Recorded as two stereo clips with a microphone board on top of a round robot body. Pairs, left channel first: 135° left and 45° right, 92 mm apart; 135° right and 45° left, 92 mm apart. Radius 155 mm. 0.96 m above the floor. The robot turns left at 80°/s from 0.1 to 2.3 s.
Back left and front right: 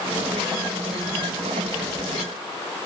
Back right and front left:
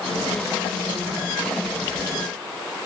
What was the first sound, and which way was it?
Only background noise.